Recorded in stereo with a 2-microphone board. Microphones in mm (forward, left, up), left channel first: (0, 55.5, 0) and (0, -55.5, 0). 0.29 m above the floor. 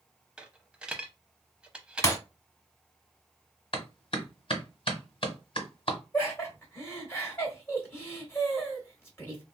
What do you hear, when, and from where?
0.4 s a dropped coin: 10° right (ahead or behind), 0.6 m
2.0 s breaking glass: 30° left (ahead or behind), 1.0 m
3.7 s a clap: 55° left (ahead or behind), 1.1 m
6.1 s laughter: 20° left (ahead or behind), 1.1 m